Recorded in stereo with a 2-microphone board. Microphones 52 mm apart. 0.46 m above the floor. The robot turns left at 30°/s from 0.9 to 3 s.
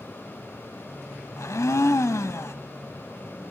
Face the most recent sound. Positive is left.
turn(degrees=60)